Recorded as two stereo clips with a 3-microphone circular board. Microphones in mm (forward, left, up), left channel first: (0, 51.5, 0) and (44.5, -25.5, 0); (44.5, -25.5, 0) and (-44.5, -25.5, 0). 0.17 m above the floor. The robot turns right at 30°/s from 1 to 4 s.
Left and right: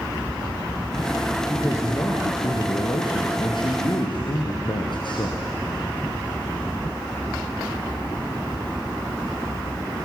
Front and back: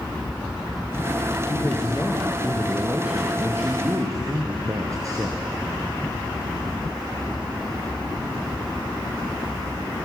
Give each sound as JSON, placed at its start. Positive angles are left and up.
{"t": 1.5, "sound": "a man speaking", "azimuth_deg": 55, "distance_m": 3.0}